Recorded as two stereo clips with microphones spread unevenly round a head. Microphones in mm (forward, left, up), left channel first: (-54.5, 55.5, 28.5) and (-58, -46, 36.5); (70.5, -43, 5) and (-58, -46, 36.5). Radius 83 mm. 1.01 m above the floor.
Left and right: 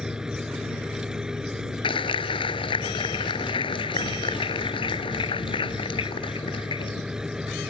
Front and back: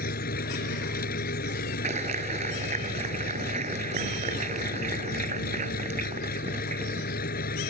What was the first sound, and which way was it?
An engine running, 5° right.